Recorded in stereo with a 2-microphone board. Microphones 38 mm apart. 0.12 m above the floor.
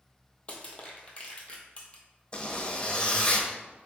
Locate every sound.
0.5 s crushing: 30° left (ahead or behind), 1.1 m
2.3 s a zipper: 25° left (ahead or behind), 0.9 m